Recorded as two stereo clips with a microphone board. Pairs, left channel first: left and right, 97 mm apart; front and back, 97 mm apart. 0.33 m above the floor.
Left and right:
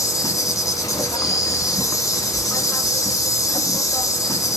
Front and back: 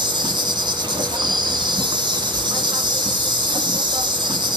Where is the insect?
140° left, 0.8 m.